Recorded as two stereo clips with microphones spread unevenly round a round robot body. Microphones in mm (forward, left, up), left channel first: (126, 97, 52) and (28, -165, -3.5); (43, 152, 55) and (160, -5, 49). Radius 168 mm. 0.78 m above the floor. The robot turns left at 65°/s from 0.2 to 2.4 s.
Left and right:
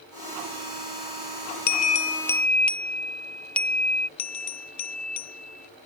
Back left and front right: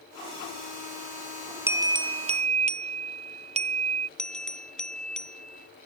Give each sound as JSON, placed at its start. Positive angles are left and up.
{"t": 1.7, "sound": "a bell", "azimuth_deg": 15}
{"t": 4.2, "sound": "a bell", "azimuth_deg": 40}